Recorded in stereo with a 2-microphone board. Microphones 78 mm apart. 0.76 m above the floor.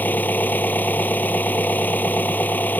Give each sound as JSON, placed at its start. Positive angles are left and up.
{"t": 0.0, "sound": "an engine running", "side_deg": 25}